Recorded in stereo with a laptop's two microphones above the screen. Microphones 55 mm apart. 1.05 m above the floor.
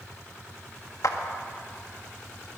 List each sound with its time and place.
1.0 s a clap: 70° left (ahead or behind), 1.7 m